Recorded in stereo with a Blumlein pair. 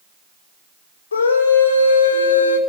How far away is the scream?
About 5.5 m.